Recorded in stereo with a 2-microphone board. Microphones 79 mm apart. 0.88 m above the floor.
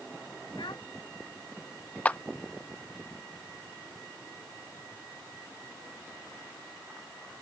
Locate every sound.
0.6 s a child speaking: 80° left
2.0 s a clap: 20° left (ahead or behind)